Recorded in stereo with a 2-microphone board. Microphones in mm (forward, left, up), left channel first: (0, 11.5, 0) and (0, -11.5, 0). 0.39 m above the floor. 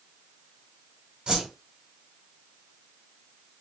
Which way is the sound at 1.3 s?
50° right (ahead or behind).